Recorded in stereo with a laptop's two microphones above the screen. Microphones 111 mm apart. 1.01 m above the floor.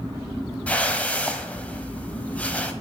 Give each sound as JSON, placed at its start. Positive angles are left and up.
{"t": 0.7, "sound": "a whoosh", "side_deg": 15, "distance_m": 1.2}